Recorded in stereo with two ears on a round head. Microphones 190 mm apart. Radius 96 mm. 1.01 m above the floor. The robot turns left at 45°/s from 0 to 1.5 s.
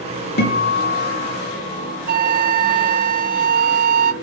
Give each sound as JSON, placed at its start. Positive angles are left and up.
{"t": 0.4, "sound": "a guitar", "azimuth_deg": 125, "distance_m": 3.5}
{"t": 2.1, "sound": "a flute", "side_deg": -40, "distance_m": 0.7}